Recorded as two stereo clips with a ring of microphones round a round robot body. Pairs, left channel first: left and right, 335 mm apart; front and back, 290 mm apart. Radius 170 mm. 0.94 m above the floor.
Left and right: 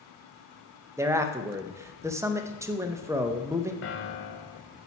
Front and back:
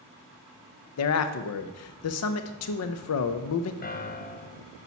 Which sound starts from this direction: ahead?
A man speaking, at 1.0 s.